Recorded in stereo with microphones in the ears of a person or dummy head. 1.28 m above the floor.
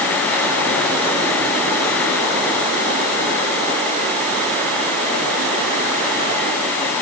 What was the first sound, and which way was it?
Only background noise.